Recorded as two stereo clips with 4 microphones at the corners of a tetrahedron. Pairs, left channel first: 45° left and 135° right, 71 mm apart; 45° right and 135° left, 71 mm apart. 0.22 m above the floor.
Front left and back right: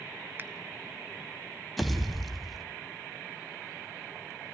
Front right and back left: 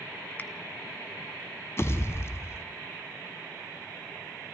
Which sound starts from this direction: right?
A finger snap, at 0.4 s.